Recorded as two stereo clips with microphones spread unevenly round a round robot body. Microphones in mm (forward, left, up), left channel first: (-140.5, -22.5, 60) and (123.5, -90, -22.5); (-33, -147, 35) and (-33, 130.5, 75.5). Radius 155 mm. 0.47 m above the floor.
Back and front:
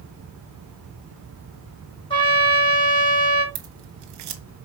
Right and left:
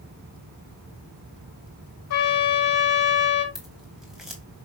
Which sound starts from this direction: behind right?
A trumpet, at 2.1 s.